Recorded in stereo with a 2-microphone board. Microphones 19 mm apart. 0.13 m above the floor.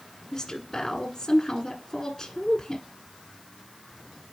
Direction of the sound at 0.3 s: 25° left (ahead or behind).